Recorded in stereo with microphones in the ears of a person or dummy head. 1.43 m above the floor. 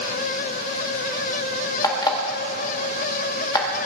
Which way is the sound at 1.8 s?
20° left (ahead or behind).